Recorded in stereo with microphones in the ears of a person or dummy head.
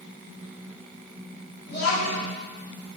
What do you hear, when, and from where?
1.7 s a child speaking: 60° left (ahead or behind), 1.5 m